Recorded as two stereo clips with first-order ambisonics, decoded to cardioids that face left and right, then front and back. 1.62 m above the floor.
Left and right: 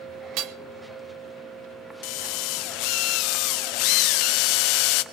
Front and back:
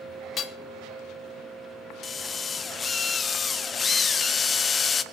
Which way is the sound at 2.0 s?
70° left.